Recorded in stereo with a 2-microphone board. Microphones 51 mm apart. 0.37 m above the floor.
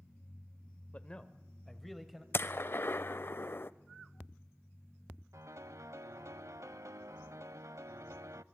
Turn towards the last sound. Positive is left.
turn(degrees=-80)